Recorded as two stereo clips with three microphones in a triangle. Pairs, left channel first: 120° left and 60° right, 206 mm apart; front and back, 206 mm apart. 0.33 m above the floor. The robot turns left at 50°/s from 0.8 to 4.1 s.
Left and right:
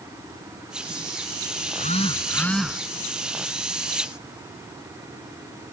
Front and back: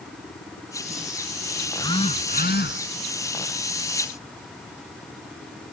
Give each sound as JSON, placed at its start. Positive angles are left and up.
{"t": 1.7, "sound": "a phone buzzing", "azimuth_deg": 80}